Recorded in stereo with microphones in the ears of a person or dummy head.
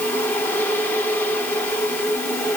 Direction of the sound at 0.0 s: 15° left (ahead or behind).